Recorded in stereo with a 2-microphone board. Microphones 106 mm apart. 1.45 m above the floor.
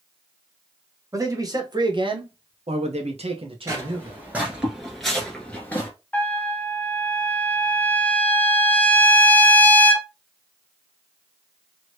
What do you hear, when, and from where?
1.1 s a man speaking: 30° right (ahead or behind), 1.3 m; by 4.2 s 40° right (ahead or behind), 1.1 m
3.7 s footsteps: 25° right (ahead or behind), 1.6 m; by 5.9 s 20° left (ahead or behind), 1.5 m
6.1 s a trumpet: 15° left (ahead or behind), 0.6 m